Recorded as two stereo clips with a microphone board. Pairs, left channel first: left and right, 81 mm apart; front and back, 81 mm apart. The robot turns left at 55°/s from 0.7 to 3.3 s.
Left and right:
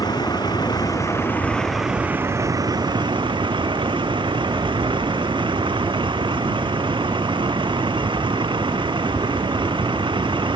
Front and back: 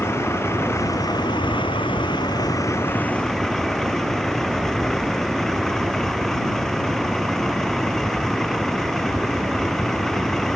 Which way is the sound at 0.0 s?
55° left.